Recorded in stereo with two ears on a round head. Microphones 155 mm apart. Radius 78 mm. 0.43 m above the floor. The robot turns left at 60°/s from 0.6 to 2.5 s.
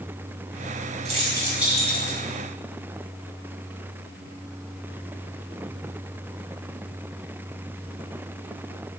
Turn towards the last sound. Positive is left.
turn(degrees=135)